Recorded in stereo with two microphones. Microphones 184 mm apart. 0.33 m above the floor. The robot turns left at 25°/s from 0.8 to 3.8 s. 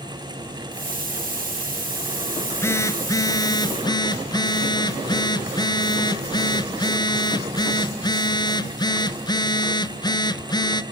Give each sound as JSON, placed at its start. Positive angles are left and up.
{"t": 2.4, "sound": "a phone buzzing", "side_deg": 10, "distance_m": 1.3}